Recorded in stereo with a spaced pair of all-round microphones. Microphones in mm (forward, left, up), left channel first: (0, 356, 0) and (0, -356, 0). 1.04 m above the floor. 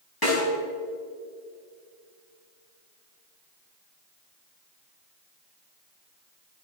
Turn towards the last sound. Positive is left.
turn(degrees=30)  # may be behind; listen again after turning